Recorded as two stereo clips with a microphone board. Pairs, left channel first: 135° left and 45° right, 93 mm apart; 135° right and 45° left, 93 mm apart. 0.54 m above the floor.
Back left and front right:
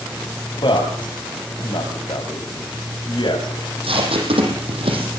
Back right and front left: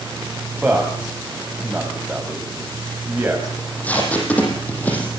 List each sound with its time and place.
0.6 s a man speaking: 120° left, 3.5 m
3.6 s tape being pulled: 60° right, 6.5 m